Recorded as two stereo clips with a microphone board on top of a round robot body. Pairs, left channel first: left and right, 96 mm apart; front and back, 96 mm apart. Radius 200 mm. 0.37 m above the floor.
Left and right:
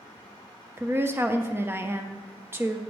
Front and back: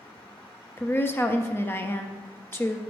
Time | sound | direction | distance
0.8 | a woman speaking | 45° right | 0.8 m